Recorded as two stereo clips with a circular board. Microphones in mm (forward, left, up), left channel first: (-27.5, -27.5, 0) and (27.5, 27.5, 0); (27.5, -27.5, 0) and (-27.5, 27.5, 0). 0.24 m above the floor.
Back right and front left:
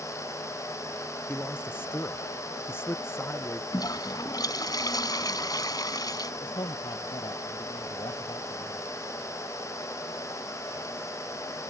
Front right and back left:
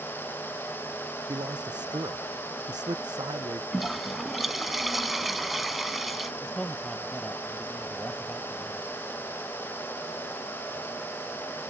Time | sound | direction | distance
1.3 | a man speaking | 160° left | ?
3.7 | a toilet flushing | 135° right | ?
6.4 | a man speaking | 125° right | ?